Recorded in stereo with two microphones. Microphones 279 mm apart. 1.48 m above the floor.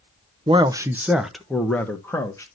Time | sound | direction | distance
0.5 | a man speaking | 20° right (ahead or behind) | 0.7 m